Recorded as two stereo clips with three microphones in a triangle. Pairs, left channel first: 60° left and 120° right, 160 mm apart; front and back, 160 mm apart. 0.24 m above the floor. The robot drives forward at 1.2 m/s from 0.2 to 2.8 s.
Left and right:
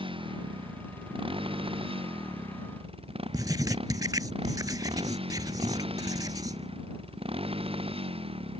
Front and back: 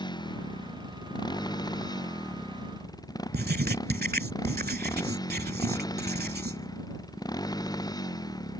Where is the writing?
175° left.